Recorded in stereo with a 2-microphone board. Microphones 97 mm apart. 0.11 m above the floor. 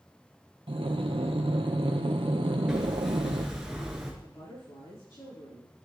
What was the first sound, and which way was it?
Breathing, 65° right (ahead or behind).